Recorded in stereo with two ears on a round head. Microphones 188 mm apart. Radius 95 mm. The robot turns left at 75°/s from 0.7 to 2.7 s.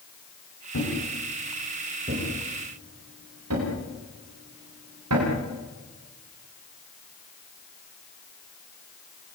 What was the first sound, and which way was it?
A thud, 65° left (ahead or behind).